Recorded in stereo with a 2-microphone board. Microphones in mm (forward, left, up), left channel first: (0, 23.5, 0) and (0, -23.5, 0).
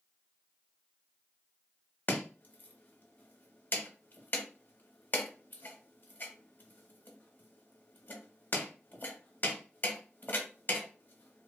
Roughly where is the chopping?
Left.